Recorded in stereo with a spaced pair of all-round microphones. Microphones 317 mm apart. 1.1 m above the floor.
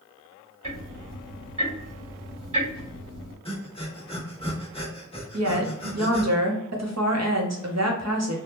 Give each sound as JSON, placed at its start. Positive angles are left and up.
{"t": 0.6, "sound": "ticking", "side_deg": -75, "distance_m": 2.0}
{"t": 3.5, "sound": "breathing", "side_deg": 15, "distance_m": 0.9}
{"t": 5.3, "sound": "a woman speaking", "side_deg": -55, "distance_m": 0.9}